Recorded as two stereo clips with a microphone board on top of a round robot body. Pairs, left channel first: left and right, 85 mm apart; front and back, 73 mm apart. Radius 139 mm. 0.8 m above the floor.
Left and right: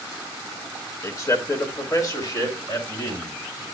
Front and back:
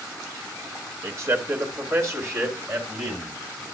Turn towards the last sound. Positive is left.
turn(degrees=130)